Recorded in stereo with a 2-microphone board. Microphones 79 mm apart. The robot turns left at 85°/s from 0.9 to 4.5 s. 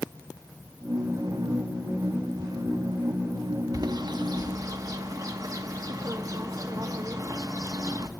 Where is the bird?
55° right (ahead or behind), 0.6 m; by 8.1 s 50° right (ahead or behind), 0.6 m.